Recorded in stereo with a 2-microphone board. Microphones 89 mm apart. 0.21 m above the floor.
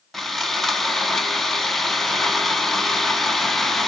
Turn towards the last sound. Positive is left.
turn(degrees=0)  # may be behind; listen again after turning